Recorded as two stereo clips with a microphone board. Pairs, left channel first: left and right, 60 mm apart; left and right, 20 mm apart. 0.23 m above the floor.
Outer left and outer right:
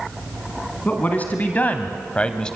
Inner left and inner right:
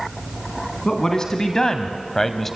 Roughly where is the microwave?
I don't hear a microwave.